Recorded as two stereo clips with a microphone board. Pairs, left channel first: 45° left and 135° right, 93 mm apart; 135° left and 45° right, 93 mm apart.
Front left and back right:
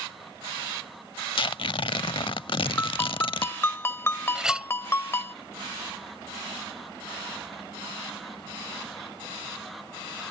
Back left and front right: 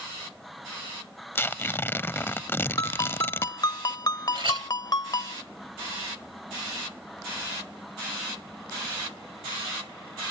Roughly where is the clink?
Ahead right.